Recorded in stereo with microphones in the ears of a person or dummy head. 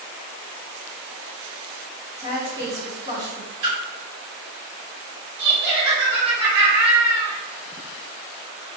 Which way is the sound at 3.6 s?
60° right (ahead or behind).